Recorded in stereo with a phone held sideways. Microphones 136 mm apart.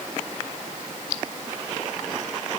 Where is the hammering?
I don't hear hammering.